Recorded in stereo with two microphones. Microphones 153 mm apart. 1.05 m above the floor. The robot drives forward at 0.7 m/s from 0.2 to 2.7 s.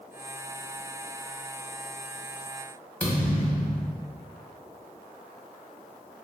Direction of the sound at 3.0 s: 10° left (ahead or behind).